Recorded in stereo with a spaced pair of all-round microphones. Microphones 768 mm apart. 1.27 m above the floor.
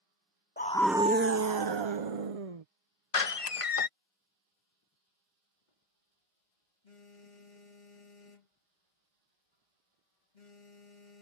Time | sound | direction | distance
0.6 | a scream | 15° left (ahead or behind) | ?
3.1 | a door slam | 45° left (ahead or behind) | ?
5.7 | a phone buzzing | 70° left (ahead or behind) | ?